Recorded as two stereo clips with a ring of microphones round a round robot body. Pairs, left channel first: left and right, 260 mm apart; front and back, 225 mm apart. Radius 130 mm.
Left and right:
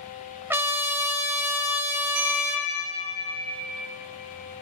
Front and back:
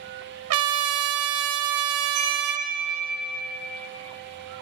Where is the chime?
135° right, 5.5 m.